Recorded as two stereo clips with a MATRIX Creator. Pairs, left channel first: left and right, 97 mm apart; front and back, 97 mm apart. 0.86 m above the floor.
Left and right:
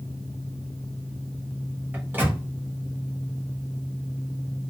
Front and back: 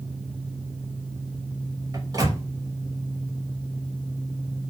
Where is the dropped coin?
I don't hear a dropped coin.